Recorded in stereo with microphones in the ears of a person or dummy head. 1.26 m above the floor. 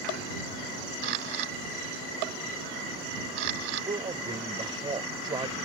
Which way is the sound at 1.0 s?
60° right (ahead or behind).